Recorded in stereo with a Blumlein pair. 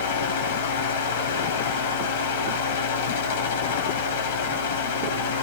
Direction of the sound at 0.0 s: 60° left.